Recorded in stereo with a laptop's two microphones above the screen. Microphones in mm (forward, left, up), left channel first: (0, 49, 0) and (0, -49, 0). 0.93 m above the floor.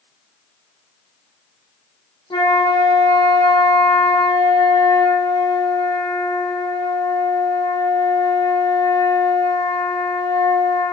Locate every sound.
2.3 s a flute: 55° left (ahead or behind), 1.3 m